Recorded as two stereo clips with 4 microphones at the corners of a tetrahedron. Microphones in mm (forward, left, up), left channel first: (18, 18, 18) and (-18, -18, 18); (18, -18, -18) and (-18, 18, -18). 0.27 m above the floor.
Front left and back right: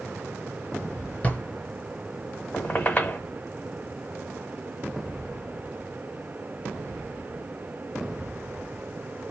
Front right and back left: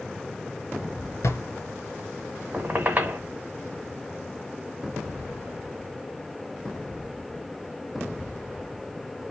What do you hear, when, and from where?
1.2 s a drawer: 15° right, 1.2 m
2.5 s a squeak: 90° left, 1.0 m